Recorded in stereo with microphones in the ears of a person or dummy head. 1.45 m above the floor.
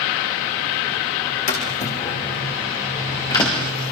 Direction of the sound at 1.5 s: 40° left (ahead or behind).